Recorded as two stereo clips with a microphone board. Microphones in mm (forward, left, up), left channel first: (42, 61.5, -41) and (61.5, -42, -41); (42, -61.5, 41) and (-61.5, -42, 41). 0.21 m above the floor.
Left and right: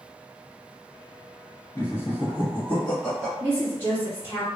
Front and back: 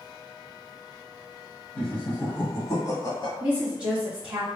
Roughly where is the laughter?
Ahead left.